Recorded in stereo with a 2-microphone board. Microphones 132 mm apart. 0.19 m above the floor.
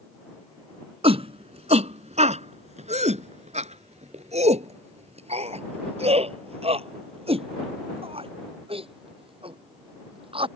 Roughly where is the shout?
Right.